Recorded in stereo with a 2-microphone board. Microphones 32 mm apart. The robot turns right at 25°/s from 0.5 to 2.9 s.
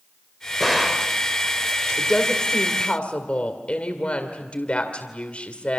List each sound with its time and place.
0.6 s a gunshot: 5° left (ahead or behind), 2.5 m; by 1.1 s 10° right (ahead or behind), 2.5 m
2.0 s a woman speaking: 15° left (ahead or behind), 2.5 m; by 5.8 s 35° left (ahead or behind), 2.5 m